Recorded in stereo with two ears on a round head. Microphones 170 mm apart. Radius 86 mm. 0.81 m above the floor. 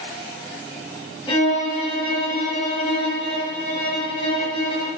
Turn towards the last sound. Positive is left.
turn(degrees=20)  # may be behind; listen again after turning